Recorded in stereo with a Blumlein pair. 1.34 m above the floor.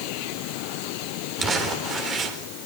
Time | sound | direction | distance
1.4 | crumpling | 25° right | 4 m